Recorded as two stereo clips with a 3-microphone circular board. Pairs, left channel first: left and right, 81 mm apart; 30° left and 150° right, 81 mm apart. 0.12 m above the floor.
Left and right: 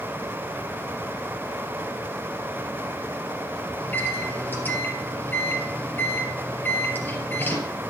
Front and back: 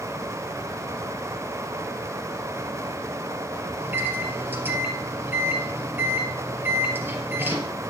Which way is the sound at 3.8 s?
150° left.